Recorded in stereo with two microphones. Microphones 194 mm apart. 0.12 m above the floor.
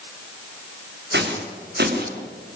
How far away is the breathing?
No breathing in this recording.